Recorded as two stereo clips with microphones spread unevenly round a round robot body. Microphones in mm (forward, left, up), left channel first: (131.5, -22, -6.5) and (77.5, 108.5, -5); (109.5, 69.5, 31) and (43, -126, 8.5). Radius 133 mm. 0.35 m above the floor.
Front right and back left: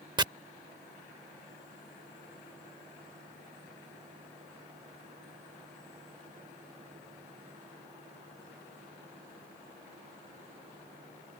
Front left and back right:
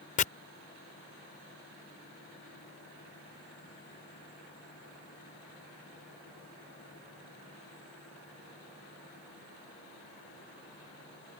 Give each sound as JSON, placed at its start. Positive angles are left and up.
{"t": 0.2, "sound": "chopping", "azimuth_deg": 95}